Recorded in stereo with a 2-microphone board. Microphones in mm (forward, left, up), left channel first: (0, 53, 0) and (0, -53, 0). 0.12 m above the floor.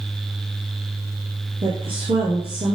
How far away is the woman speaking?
About 2 m.